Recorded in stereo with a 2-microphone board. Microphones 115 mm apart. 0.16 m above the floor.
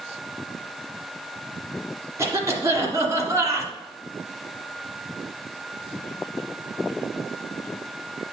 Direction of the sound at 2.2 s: 25° right (ahead or behind).